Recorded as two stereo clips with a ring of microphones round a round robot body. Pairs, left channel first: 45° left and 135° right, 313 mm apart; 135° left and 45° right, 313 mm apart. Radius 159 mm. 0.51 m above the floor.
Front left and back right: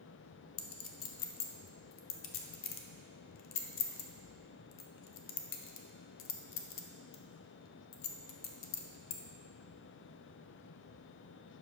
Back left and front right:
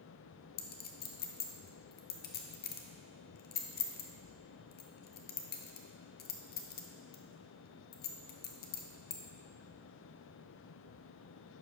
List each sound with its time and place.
0.6 s a clink: 80° left, 0.7 m